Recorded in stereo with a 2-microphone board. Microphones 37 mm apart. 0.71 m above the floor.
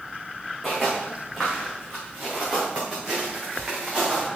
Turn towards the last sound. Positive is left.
turn(degrees=-10)  # may be behind; listen again after turning